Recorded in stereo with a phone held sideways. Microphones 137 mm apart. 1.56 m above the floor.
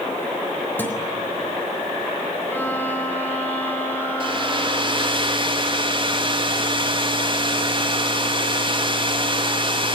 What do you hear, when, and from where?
0.8 s a guitar: 15° left (ahead or behind), 3.5 m
2.5 s a violin: 15° left (ahead or behind), 4 m
4.2 s a hair dryer: 35° right (ahead or behind), 3 m